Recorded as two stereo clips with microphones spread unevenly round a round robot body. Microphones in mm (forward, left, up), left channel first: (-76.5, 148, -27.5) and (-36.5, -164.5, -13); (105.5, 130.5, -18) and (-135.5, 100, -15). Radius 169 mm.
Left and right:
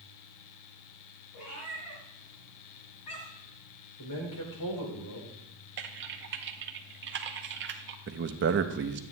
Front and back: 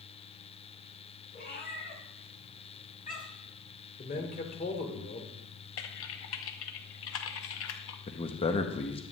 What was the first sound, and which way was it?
A cat meowing, 60° left.